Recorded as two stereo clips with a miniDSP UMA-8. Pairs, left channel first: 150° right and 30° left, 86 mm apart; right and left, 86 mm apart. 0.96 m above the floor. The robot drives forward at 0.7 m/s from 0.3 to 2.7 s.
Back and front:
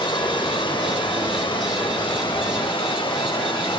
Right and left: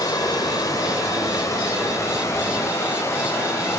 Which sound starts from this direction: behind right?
Running water, at 0.0 s.